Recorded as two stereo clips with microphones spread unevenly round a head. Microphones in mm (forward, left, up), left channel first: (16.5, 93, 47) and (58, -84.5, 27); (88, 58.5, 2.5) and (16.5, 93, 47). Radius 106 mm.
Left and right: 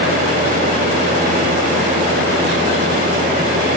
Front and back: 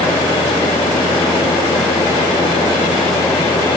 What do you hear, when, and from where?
Only background noise.